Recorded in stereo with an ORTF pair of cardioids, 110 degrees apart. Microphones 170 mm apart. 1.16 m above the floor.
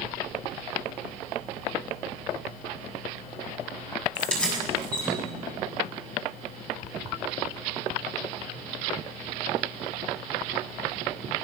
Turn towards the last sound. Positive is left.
turn(degrees=5)